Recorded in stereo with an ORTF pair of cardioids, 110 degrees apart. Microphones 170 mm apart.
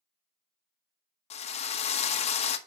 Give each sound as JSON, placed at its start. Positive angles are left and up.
{"t": 1.3, "sound": "a drill", "azimuth_deg": 40, "distance_m": 0.9}